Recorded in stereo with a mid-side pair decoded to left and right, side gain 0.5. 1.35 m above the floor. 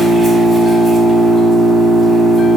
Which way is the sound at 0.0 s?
25° right.